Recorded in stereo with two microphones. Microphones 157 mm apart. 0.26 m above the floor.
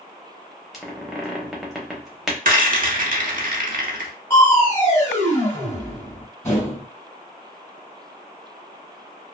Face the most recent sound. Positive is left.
turn(degrees=20)  # may be behind; listen again after turning